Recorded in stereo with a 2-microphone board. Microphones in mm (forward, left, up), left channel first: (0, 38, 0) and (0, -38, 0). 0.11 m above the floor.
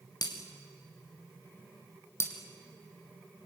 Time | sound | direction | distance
0.2 | breaking glass | 60° left (ahead or behind) | 4 m
2.2 | breaking glass | 35° left (ahead or behind) | 2.5 m